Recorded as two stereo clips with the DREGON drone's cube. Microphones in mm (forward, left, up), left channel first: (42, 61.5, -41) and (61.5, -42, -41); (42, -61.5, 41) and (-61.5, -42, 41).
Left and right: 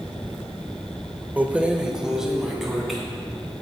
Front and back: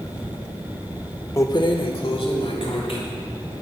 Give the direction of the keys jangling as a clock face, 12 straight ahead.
1 o'clock.